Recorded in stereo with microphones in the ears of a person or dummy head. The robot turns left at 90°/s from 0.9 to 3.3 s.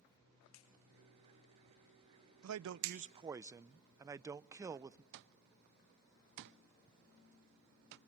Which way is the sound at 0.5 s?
80° left.